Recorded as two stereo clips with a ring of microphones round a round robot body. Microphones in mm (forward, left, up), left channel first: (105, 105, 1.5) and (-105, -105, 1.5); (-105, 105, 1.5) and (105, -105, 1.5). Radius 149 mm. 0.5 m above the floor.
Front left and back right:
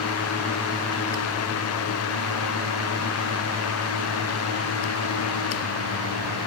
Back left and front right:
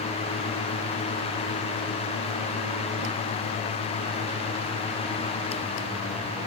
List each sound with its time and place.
Only background noise.